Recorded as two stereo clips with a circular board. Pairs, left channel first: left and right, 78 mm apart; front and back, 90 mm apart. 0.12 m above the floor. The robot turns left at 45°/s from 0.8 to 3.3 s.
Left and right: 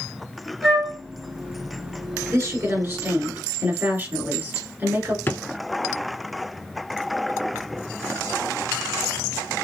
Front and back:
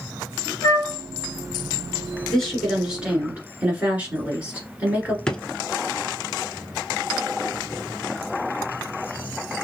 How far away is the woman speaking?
About 1.9 m.